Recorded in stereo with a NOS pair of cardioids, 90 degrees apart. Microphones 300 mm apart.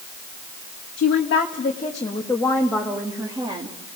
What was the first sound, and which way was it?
A woman speaking, 50° left.